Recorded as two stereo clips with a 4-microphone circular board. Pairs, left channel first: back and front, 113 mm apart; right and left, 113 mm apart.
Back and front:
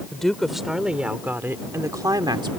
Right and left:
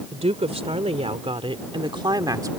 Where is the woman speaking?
95° left; by 2.5 s 35° left.